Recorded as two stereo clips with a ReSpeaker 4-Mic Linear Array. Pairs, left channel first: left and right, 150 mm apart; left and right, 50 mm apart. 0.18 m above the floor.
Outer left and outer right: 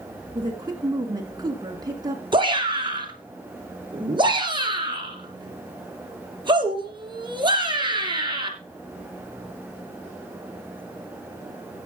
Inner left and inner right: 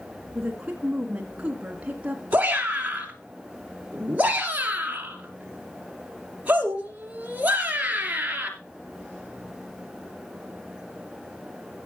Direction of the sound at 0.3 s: 25° right (ahead or behind).